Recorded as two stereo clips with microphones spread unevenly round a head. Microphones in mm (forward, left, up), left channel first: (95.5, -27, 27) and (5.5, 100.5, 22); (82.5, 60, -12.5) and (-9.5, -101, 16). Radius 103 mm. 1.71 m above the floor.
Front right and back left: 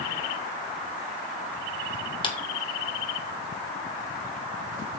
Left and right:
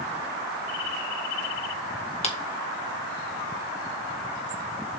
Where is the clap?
5° left, 2 m.